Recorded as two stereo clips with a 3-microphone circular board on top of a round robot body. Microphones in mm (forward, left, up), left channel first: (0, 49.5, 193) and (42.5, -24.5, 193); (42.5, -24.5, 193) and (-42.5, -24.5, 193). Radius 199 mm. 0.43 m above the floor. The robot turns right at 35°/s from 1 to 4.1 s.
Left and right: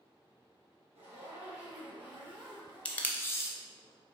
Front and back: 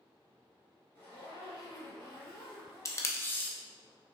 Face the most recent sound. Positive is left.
turn(degrees=90)